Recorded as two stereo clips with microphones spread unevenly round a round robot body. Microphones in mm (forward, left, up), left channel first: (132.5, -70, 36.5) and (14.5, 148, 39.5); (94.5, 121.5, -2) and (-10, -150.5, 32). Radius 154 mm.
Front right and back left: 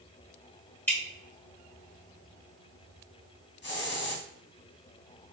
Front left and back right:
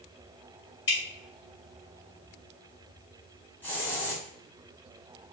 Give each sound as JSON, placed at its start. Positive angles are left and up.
{"t": 0.9, "sound": "dripping", "azimuth_deg": 20, "distance_m": 1.9}
{"t": 3.6, "sound": "a hiss", "azimuth_deg": -15, "distance_m": 1.2}